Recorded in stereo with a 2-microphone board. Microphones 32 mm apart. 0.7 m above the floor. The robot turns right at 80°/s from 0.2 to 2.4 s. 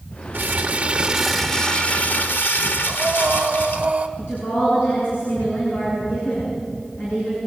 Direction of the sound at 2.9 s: 30° right (ahead or behind).